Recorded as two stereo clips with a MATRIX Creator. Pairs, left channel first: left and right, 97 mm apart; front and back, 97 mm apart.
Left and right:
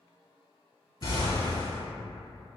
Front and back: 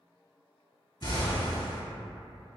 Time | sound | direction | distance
1.0 | an explosion | 45° left | 1.0 m